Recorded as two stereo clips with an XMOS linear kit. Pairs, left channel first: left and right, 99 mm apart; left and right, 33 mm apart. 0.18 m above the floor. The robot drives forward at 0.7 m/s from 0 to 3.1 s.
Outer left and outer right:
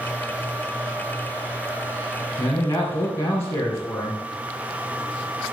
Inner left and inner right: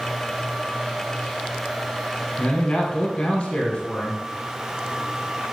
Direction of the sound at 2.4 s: 25° left (ahead or behind).